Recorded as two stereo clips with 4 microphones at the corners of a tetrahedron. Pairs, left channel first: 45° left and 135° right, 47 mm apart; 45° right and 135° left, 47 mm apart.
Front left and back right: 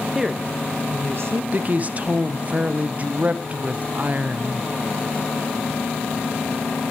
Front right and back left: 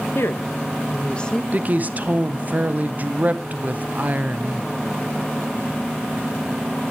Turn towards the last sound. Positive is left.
turn(degrees=180)